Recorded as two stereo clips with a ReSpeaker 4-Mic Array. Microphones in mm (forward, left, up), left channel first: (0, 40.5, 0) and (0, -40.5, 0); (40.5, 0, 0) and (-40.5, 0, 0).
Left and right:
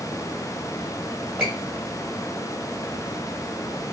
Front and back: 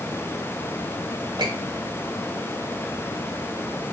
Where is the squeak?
175° right, 1.3 m.